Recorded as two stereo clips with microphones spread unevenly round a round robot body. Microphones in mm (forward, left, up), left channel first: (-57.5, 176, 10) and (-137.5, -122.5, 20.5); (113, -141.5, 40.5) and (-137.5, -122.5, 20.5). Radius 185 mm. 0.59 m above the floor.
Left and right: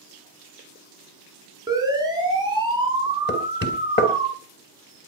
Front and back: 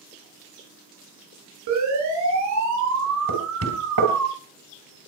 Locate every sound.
1.7 s a siren: 175° left, 8.5 m; by 4.3 s 175° right, 7 m
3.3 s knocking: 130° left, 3 m